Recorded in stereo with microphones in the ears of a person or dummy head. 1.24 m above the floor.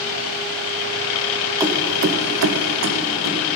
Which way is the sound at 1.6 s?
15° right (ahead or behind).